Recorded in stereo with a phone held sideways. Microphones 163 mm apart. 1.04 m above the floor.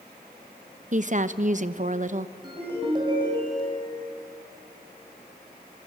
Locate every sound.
0.9 s a woman speaking: 50° right (ahead or behind), 0.9 m
2.4 s a ringtone: 30° right (ahead or behind), 5.5 m